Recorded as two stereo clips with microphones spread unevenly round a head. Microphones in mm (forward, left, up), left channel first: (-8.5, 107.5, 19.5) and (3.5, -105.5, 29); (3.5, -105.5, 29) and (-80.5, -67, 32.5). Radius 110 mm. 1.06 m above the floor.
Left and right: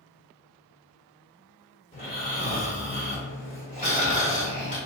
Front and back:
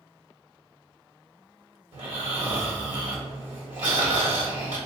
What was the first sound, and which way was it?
Snoring, 155° left.